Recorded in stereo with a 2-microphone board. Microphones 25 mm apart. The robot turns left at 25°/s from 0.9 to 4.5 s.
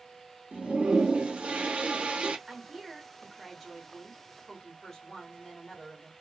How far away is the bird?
No bird in this recording.